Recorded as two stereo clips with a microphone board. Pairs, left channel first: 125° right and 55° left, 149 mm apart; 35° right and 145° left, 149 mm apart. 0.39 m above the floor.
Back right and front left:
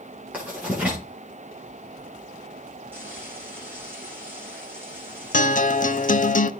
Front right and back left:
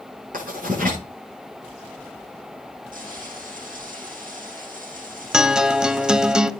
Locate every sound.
0.3 s writing: 135° left, 8.5 m
2.9 s frying: 130° left, 10 m
5.3 s a guitar: 130° right, 0.6 m